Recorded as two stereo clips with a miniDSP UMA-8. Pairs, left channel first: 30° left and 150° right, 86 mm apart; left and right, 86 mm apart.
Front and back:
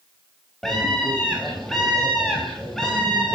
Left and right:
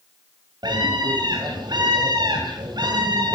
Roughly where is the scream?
Ahead right.